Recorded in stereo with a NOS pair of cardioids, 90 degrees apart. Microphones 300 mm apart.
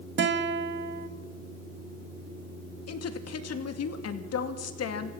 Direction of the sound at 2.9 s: 55° left.